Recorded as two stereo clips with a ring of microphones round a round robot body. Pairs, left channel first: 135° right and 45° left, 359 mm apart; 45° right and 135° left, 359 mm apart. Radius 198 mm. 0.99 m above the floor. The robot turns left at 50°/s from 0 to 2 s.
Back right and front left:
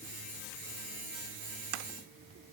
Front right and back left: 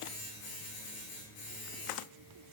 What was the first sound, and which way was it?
Only background noise.